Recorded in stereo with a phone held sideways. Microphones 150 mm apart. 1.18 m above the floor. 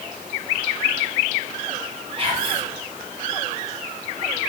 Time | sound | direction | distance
2.2 | whispering | 40° right (ahead or behind) | 3 m